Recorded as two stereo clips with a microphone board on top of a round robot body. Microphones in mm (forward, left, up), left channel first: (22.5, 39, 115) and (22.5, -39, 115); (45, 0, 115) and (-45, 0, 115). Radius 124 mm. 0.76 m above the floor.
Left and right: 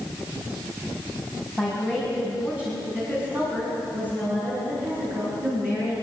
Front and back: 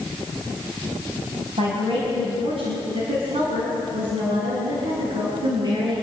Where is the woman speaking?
Straight behind, 5.5 m; by 5.9 s 150° right, 11 m.